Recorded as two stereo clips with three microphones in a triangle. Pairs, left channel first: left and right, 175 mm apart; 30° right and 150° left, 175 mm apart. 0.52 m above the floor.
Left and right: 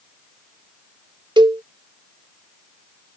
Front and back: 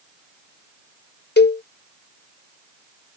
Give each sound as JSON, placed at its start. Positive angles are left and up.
{"t": 1.4, "sound": "a cowbell", "azimuth_deg": -25}